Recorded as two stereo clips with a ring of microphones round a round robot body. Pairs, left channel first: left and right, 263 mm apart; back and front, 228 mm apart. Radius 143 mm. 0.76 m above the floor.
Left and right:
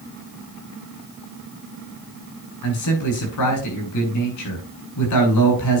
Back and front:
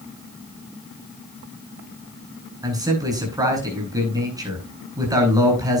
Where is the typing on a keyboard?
No typing on a keyboard in this recording.